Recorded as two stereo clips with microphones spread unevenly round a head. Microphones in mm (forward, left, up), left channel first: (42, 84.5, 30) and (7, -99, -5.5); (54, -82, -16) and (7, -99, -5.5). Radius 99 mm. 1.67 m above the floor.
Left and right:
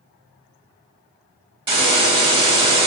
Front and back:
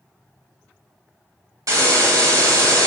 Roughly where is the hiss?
Behind.